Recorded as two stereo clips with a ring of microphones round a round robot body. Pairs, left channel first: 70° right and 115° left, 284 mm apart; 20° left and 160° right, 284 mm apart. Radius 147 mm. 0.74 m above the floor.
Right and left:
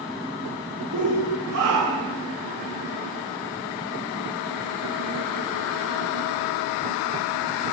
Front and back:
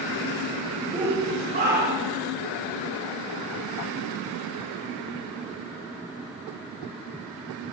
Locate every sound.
0.9 s a shout: 130° left, 4 m; by 2.2 s 155° left, 4.5 m